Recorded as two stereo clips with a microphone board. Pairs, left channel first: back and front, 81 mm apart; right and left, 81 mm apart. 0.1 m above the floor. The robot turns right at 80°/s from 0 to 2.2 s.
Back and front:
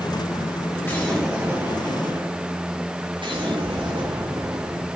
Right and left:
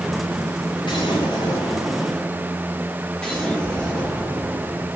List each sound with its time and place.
0.8 s an explosion: 120° right, 4.5 m; by 4.9 s 10° right, 4.5 m